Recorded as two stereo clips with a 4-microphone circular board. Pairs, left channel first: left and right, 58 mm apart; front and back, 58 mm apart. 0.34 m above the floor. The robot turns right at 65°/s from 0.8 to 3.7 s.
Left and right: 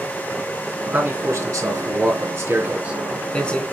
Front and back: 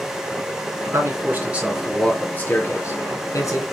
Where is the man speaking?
150° right, 3 m; by 3.6 s 25° left, 3 m.